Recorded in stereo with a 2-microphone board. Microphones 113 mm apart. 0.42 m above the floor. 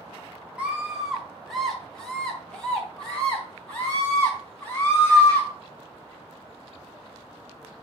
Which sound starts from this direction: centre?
A scream, at 0.6 s.